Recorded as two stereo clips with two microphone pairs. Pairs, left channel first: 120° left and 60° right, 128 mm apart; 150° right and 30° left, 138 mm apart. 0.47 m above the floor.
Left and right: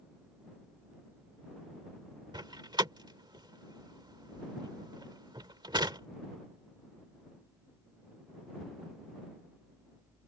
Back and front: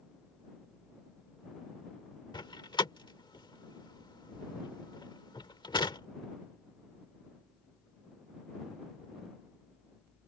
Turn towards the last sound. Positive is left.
turn(degrees=-100)